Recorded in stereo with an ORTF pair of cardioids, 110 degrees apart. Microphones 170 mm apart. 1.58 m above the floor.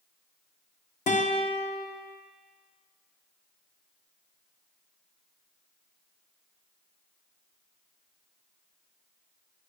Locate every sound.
1.1 s a guitar: 50° left, 1.2 m